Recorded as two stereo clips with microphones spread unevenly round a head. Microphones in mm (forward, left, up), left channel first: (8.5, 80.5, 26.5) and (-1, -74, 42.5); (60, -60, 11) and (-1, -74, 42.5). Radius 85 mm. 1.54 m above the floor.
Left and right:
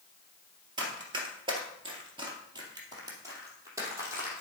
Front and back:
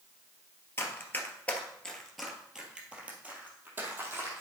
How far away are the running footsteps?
About 1.9 m.